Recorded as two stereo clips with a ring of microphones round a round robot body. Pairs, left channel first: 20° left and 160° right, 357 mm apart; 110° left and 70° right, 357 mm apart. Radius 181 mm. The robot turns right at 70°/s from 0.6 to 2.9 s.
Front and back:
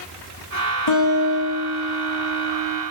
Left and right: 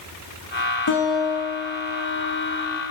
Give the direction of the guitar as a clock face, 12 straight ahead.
10 o'clock.